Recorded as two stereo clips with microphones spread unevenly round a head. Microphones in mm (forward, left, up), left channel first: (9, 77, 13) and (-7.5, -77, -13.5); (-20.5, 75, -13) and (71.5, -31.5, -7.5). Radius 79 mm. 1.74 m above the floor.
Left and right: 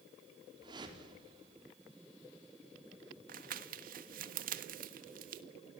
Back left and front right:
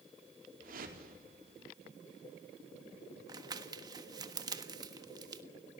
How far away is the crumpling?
About 1.3 m.